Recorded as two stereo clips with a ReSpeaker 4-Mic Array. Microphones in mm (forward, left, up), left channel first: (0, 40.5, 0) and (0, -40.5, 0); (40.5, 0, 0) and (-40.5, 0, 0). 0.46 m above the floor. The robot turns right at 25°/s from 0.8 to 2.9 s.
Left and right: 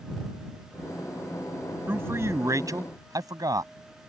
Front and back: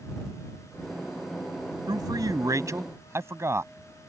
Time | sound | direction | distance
1.9 | a man speaking | 155° right | ?